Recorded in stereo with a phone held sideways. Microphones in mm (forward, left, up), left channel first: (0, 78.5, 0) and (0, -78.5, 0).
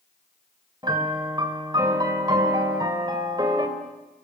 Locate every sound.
0.8 s a piano: 25° right (ahead or behind), 3 m